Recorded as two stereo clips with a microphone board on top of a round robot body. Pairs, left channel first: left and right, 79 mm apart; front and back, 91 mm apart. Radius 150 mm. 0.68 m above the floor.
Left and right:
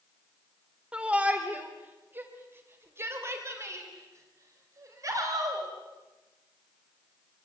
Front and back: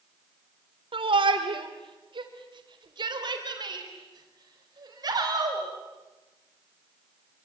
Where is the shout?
165° right, 3 m; by 5.7 s 135° right, 5.5 m.